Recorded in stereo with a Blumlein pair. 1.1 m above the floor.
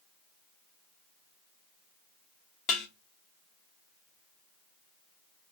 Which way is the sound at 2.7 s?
25° left.